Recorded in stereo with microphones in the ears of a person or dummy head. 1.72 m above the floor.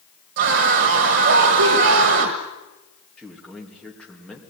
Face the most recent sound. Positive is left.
turn(degrees=10)  # may be behind; listen again after turning